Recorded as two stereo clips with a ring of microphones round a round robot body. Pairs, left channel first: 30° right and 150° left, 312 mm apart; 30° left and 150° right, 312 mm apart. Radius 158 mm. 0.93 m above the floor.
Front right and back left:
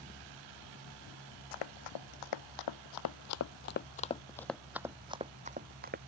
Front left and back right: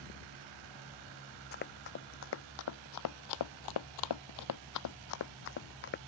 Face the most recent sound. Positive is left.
turn(degrees=90)